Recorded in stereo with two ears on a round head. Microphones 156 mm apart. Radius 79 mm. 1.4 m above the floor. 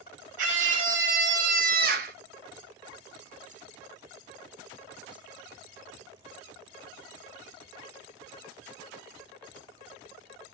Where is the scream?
45° right (ahead or behind), 2.5 m; by 2.1 s 55° right (ahead or behind), 1.2 m.